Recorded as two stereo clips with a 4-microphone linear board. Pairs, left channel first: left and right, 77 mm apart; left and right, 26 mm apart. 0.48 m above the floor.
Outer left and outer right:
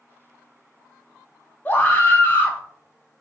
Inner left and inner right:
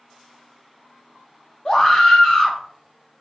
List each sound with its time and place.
1.6 s a scream: 25° left (ahead or behind), 0.7 m